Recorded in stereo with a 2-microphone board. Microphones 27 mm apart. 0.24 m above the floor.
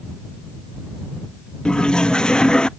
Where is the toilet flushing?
30° left (ahead or behind).